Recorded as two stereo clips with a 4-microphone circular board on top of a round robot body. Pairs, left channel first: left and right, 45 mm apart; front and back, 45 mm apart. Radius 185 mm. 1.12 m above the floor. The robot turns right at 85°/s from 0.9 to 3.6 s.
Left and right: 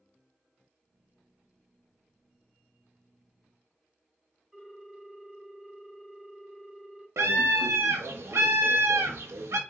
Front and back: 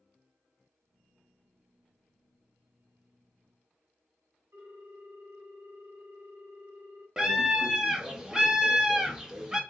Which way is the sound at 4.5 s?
175° right.